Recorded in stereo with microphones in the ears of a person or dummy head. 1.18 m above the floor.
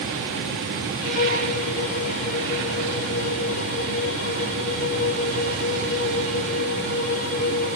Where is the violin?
40° left (ahead or behind), 1.9 m.